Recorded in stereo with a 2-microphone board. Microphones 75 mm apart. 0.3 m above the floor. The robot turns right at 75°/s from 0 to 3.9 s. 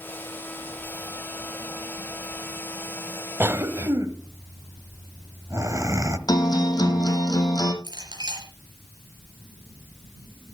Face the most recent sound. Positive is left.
turn(degrees=-75)  # may be behind; listen again after turning